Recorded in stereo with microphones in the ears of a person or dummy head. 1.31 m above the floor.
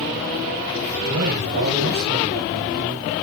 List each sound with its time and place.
1.1 s a man speaking: 85° right, 4.5 m